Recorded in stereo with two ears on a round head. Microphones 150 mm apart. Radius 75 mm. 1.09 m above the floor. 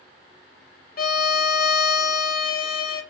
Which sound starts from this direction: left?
A violin, at 1.0 s.